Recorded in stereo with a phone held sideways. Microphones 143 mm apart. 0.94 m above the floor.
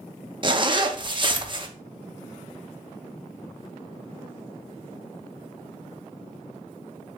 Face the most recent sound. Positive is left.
turn(degrees=-35)  # may be behind; listen again after turning